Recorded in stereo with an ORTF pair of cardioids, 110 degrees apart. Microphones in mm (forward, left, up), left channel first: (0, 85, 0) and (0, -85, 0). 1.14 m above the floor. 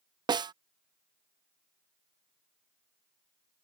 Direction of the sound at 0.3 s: 25° right.